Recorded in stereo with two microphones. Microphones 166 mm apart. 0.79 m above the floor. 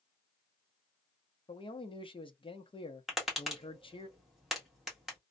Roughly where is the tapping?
Centre.